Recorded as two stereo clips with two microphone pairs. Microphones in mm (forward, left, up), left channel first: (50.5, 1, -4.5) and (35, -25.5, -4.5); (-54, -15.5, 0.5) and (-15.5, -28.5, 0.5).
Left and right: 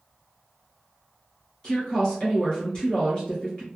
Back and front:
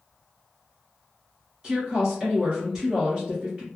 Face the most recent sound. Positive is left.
turn(degrees=30)